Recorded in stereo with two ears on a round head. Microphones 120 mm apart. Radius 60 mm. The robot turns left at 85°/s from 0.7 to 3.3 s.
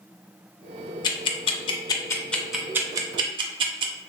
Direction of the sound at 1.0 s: 30° left (ahead or behind).